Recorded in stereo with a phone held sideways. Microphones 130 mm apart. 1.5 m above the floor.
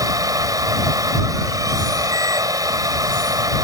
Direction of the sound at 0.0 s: 30° right (ahead or behind).